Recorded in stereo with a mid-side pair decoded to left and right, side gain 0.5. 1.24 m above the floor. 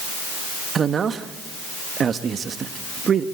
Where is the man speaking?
45° right, 1.4 m.